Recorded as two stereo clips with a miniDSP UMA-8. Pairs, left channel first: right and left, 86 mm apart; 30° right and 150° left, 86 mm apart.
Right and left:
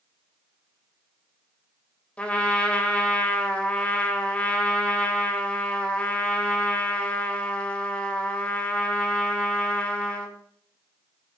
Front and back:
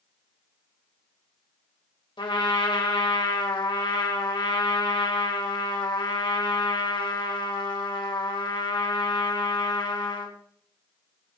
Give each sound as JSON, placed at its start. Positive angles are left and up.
{"t": 2.2, "sound": "a trumpet", "azimuth_deg": -15, "distance_m": 2.0}